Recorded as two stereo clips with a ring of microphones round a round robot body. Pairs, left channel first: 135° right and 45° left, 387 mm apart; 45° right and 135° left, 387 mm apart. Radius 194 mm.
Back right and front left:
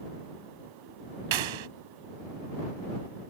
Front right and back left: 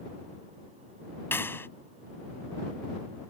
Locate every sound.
1.3 s a clap: 40° left